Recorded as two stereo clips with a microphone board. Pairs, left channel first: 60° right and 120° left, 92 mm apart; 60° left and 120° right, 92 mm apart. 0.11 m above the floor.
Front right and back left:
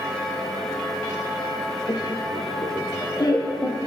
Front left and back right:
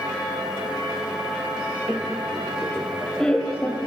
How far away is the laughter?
About 2.5 m.